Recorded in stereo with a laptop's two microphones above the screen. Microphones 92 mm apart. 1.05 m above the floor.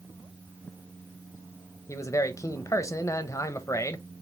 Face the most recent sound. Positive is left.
turn(degrees=35)  # may be behind; listen again after turning